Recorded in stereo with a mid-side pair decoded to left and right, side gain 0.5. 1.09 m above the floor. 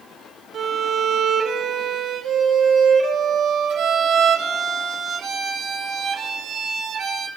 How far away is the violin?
About 6 m.